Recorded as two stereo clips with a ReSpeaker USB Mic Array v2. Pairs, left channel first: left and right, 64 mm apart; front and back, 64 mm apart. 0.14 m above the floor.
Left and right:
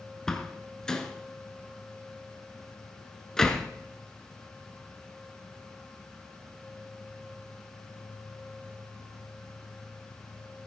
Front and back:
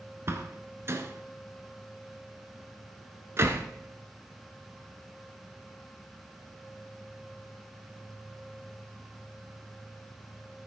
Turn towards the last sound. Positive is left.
turn(degrees=170)